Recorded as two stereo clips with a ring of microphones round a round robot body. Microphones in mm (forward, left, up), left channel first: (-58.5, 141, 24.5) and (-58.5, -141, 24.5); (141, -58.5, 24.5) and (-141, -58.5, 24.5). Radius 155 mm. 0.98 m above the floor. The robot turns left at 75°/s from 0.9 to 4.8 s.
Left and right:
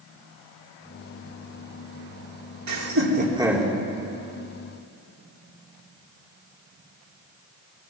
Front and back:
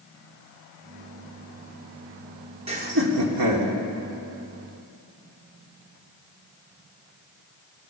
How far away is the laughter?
About 3.5 m.